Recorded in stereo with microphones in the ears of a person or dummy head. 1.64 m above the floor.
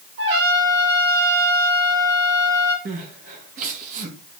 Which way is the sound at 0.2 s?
70° right (ahead or behind).